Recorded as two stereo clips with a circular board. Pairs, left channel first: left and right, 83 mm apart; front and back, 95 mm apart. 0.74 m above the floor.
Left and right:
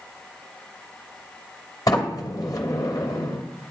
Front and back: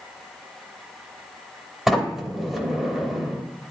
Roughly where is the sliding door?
Left.